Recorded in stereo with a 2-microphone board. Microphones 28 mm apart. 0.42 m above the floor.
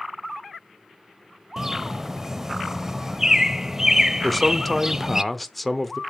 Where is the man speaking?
Centre (ahead or behind), 0.8 m.